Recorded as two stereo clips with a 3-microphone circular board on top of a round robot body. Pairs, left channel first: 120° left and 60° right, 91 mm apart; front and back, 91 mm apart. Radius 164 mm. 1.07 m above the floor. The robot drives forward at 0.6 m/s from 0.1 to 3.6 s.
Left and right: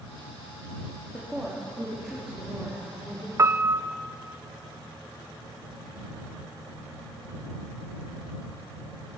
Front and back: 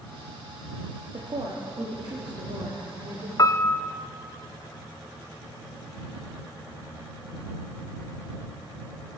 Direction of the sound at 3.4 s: 20° right.